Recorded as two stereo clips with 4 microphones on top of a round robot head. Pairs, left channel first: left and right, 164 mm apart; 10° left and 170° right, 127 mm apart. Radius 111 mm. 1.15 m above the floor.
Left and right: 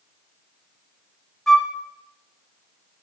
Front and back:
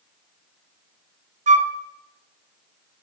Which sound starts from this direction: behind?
A flute, at 1.5 s.